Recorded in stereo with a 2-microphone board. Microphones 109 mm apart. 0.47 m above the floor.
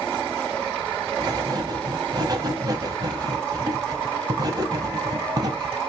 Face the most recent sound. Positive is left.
turn(degrees=-35)  # may be behind; listen again after turning